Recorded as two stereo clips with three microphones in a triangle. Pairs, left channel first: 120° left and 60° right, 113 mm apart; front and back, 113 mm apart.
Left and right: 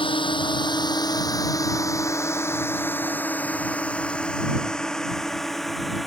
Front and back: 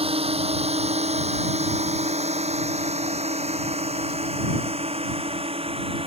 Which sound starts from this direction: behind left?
A drone, at 0.0 s.